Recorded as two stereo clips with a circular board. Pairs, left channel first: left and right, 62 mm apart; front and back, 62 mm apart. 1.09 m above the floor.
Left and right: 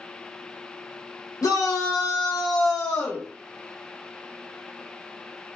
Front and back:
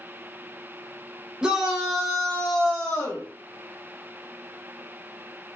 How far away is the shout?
About 1.4 m.